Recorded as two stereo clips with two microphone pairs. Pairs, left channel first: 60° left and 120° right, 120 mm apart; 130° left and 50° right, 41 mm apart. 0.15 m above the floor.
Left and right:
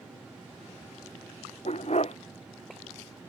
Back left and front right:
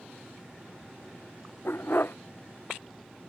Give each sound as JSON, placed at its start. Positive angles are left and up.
{"t": 1.6, "sound": "a dog barking", "azimuth_deg": 95}